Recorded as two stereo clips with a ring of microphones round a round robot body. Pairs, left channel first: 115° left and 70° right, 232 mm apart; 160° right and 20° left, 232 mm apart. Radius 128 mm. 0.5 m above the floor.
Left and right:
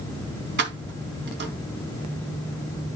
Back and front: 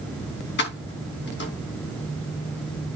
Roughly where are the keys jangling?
Behind right.